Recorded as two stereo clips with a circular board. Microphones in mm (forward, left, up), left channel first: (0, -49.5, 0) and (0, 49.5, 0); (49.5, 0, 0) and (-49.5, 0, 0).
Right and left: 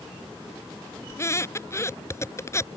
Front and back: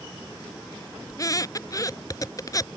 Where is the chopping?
I don't hear chopping.